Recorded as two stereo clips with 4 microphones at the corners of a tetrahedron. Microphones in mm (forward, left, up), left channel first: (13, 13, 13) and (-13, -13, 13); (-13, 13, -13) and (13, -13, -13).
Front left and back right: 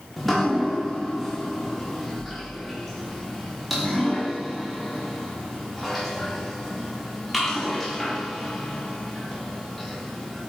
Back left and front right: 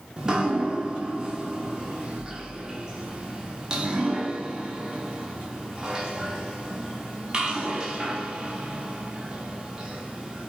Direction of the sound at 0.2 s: 40° right.